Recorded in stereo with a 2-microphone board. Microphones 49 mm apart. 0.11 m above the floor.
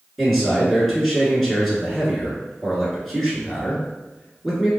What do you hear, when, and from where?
0.2 s a man speaking: centre (ahead or behind), 1.5 m